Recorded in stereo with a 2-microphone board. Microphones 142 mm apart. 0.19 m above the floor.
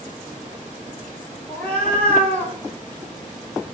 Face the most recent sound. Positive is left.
turn(degrees=10)  # may be behind; listen again after turning